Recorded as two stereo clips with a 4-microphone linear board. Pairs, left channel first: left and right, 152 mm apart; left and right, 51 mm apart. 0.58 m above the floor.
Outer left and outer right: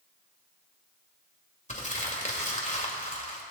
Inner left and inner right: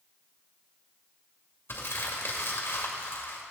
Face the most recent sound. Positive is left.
turn(degrees=50)  # may be behind; listen again after turning